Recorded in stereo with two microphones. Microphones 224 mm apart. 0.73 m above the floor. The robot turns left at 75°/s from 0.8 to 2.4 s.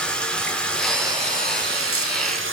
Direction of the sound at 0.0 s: 5° left.